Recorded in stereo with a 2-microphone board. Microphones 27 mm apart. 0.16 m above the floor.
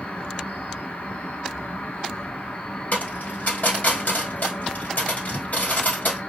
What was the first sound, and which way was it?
An insect, 65° left (ahead or behind).